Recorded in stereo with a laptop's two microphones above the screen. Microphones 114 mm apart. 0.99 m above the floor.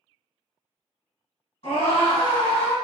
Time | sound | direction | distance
1.6 | a scream | 60° left (ahead or behind) | 1.6 m